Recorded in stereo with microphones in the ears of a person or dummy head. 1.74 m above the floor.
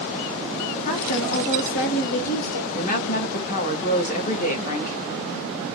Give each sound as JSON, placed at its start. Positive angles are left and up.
{"t": 0.8, "sound": "a woman speaking", "side_deg": 40, "distance_m": 1.2}
{"t": 2.7, "sound": "a woman speaking", "side_deg": 40, "distance_m": 0.9}